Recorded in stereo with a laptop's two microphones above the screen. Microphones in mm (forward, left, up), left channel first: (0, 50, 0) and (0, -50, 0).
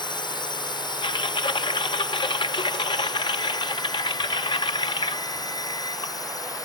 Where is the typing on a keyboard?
55° left (ahead or behind).